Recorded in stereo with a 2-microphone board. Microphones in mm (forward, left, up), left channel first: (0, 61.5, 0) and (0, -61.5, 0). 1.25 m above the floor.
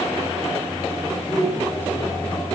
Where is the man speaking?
25° left (ahead or behind), 5 m.